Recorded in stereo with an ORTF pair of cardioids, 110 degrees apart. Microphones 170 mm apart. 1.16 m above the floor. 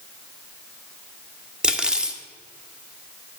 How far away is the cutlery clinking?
About 0.7 m.